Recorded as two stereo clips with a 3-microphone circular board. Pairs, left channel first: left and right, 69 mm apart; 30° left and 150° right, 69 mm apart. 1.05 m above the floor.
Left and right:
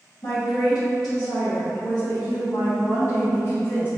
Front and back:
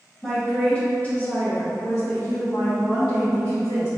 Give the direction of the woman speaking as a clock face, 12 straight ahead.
8 o'clock.